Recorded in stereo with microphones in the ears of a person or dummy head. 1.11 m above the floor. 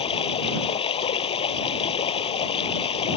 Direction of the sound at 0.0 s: 30° left (ahead or behind).